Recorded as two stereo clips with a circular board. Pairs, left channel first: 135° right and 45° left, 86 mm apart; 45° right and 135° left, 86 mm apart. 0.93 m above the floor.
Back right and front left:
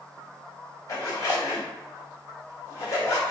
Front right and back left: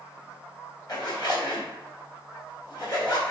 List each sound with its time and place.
0.9 s a zipper: 85° right, 1.9 m